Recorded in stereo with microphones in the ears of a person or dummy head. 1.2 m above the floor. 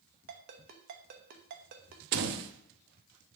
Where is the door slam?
55° right (ahead or behind), 0.8 m.